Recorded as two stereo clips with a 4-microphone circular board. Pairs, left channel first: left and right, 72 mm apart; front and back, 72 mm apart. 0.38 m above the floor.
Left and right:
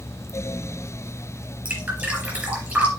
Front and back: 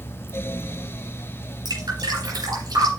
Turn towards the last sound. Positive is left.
turn(degrees=-155)